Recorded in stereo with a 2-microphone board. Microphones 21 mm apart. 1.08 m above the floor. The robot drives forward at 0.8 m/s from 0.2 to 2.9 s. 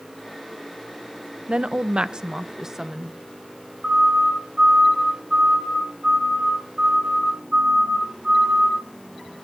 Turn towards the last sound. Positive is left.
turn(degrees=-30)  # may be behind; listen again after turning